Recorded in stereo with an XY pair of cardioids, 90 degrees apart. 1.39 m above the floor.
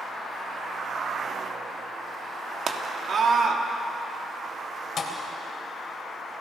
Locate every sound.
2.7 s a scream: 50° right, 3 m
5.0 s a thud: 55° left, 3 m